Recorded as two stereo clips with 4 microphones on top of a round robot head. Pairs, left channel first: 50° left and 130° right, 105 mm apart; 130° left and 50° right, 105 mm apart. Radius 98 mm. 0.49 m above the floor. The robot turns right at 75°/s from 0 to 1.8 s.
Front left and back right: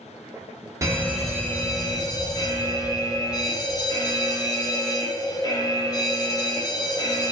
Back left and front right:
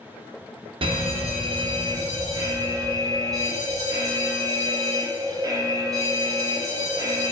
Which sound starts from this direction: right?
An alarm, at 0.8 s.